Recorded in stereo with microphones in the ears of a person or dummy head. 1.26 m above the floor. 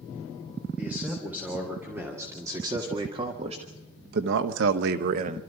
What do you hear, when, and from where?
0.8 s a man speaking: 10° right (ahead or behind), 3.5 m; by 5.4 s 45° right (ahead or behind), 1.2 m